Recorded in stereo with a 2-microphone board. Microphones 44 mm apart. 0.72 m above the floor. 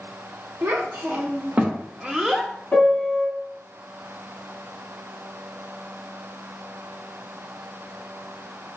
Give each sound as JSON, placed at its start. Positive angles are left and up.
{"t": 0.6, "sound": "a child speaking", "side_deg": -55, "distance_m": 1.1}
{"t": 2.7, "sound": "a piano", "side_deg": 40, "distance_m": 1.7}